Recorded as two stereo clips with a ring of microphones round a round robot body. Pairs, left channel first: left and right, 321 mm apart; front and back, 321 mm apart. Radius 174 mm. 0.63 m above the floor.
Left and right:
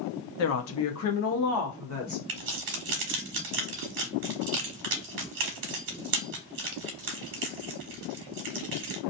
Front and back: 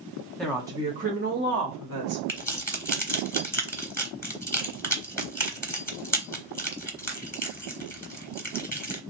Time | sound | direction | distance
0.4 | a woman speaking | 85° left | 0.7 m
2.3 | keys jangling | 80° right | 1.1 m